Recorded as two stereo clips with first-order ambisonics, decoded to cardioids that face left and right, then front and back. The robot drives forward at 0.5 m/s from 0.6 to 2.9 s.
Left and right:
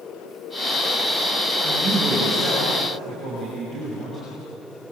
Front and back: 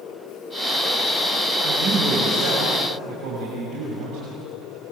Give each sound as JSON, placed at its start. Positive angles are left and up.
{"t": 1.6, "sound": "a man speaking", "azimuth_deg": 165, "distance_m": 6.0}